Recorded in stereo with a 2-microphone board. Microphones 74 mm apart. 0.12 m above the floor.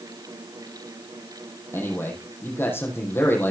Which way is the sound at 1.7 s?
30° left (ahead or behind).